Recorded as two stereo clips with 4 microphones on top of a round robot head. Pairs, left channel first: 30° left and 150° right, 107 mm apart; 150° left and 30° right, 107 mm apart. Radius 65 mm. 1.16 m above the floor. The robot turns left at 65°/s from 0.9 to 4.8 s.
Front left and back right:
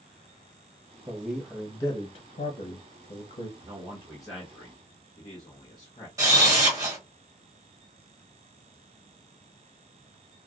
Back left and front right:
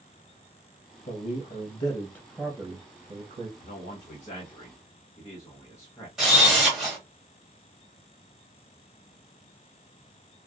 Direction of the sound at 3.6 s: 160° left.